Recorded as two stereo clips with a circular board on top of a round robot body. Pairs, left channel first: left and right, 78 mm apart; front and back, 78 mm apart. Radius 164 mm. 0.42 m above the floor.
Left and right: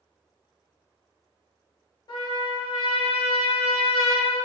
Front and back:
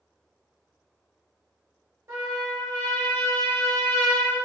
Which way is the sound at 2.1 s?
125° left.